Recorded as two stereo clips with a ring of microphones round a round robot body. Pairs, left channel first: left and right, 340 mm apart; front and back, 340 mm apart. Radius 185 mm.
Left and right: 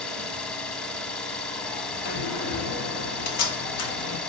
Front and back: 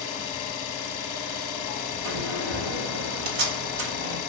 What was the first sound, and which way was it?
An engine running, 5° left.